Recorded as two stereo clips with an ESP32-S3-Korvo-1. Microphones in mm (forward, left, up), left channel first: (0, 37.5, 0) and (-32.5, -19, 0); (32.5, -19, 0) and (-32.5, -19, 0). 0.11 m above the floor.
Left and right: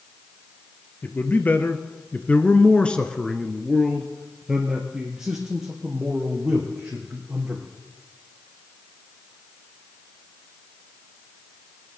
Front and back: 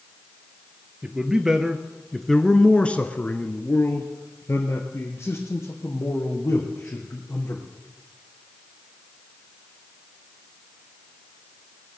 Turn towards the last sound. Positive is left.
turn(degrees=-50)